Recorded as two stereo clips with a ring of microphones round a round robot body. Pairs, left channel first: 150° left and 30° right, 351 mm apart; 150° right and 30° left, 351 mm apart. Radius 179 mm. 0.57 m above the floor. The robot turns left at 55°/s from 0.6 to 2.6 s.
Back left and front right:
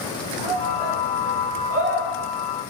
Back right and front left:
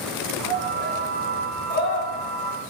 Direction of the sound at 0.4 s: 20° right.